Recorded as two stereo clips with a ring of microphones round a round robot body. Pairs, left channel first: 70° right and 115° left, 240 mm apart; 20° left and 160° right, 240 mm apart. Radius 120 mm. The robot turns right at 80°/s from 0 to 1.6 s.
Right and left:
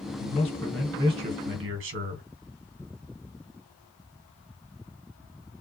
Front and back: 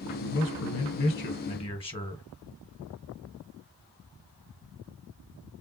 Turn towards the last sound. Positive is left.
turn(degrees=85)